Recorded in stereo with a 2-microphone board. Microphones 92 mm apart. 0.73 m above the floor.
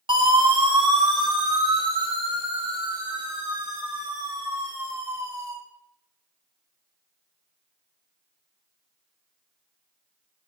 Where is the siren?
65° right (ahead or behind), 5.5 m; by 5.5 s 40° right (ahead or behind), 7.5 m.